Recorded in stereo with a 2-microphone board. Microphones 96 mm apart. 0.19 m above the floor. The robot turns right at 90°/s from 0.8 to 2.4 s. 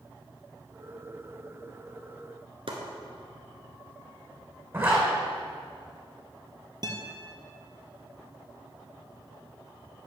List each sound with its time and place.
2.7 s chopping: 65° right (ahead or behind), 1.4 m
4.7 s a zipper: 25° right (ahead or behind), 2 m
6.8 s a guitar: 45° right (ahead or behind), 1.0 m